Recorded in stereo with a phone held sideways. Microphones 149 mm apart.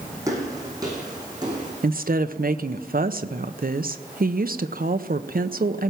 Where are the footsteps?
20° right (ahead or behind), 4.5 m; by 1.7 s 25° right (ahead or behind), 5.5 m.